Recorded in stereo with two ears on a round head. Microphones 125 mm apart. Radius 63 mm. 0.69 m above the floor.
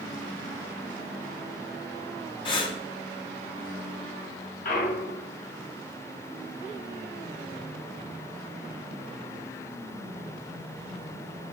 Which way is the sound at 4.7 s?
60° left (ahead or behind).